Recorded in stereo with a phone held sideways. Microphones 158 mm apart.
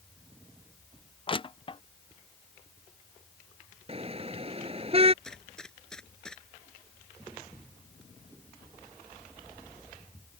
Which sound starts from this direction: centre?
A gunshot, at 5.2 s.